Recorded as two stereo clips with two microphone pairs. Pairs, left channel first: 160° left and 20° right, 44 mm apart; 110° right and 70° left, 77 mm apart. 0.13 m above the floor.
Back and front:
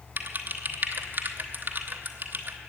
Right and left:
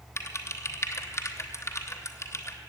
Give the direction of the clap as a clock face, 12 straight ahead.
No clap in this recording.